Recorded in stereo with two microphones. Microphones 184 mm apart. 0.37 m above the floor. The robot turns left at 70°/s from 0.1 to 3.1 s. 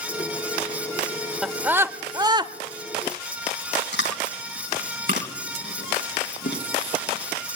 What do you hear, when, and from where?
1.4 s a scream: centre (ahead or behind), 1.0 m; by 2.5 s 25° right (ahead or behind), 1.0 m
3.9 s chewing: 70° left (ahead or behind), 3.5 m